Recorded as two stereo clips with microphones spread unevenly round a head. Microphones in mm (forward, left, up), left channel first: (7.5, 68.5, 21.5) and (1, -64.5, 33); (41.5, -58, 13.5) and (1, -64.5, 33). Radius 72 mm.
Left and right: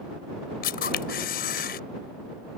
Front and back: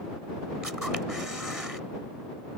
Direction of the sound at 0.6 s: 110° left.